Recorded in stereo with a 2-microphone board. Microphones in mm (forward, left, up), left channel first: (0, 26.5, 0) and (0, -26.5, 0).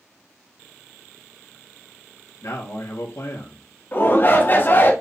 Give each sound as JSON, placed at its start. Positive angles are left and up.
{"t": 2.4, "sound": "a man speaking", "side_deg": 70, "distance_m": 2.5}
{"t": 3.9, "sound": "a shout", "side_deg": 40, "distance_m": 1.8}